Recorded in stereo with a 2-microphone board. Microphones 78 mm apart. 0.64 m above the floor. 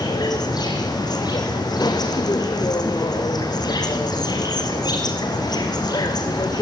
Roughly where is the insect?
Left.